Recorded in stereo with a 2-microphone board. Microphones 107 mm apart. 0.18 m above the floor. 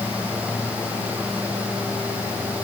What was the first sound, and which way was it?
Only background noise.